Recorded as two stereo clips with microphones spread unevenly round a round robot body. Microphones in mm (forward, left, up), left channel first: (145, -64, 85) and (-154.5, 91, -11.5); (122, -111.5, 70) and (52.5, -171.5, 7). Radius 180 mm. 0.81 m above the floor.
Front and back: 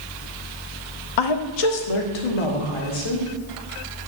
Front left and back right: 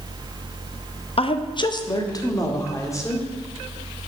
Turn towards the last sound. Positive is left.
turn(degrees=-25)